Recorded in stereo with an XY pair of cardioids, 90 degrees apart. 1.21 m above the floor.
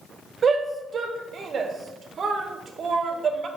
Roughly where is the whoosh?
I don't hear a whoosh.